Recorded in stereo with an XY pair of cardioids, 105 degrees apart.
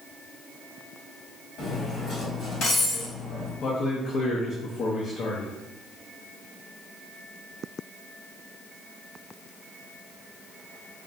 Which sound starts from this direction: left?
Cutlery clinking, at 1.6 s.